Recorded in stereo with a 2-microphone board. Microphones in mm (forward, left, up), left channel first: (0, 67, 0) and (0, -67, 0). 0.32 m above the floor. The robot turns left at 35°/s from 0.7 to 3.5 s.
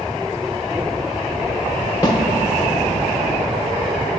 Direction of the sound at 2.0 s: 30° left (ahead or behind).